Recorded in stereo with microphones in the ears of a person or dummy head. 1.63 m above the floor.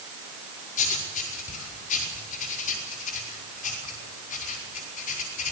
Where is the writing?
45° left (ahead or behind), 5 m.